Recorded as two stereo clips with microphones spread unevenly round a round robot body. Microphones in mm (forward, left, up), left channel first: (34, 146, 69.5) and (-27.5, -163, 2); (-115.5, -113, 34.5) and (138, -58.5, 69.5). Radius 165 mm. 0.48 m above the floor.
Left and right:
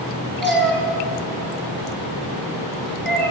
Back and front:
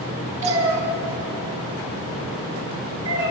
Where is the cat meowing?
10° right, 1.6 m.